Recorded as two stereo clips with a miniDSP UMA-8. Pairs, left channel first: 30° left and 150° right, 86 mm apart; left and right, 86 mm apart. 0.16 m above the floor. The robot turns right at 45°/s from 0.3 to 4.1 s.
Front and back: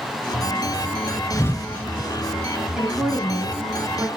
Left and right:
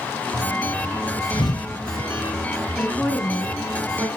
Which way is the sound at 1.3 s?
80° left.